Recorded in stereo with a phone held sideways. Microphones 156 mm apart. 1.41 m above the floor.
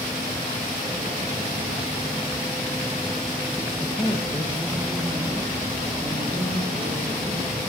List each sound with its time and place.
3.8 s a man speaking: 20° left (ahead or behind), 1.1 m; by 7.6 s 10° right (ahead or behind), 5 m